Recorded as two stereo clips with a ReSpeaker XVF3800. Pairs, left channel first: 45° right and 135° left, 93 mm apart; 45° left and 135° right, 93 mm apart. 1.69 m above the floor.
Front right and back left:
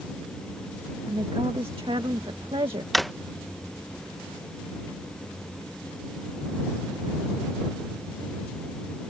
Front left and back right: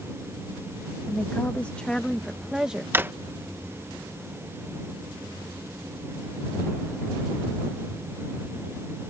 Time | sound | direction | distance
1.1 | a woman speaking | 110° left | ?
2.9 | a drawer | 135° right | ?